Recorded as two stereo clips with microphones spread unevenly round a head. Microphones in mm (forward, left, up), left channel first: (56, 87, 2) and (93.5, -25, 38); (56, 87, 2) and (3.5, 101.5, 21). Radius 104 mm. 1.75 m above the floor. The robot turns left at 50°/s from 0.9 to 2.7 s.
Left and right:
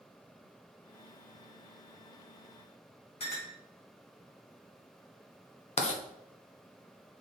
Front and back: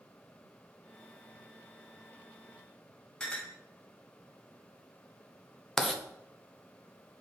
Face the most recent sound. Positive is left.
turn(degrees=75)